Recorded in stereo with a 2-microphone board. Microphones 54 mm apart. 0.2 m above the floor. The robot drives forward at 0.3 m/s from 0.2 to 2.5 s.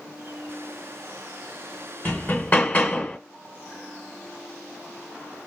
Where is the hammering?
35° left (ahead or behind), 1.5 m.